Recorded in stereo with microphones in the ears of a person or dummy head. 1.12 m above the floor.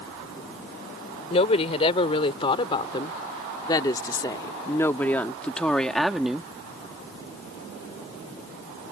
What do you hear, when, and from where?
1.3 s a woman speaking: 40° left (ahead or behind); by 6.5 s centre (ahead or behind)